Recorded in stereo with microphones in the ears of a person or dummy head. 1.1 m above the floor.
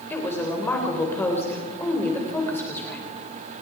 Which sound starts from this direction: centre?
A woman speaking, at 0.1 s.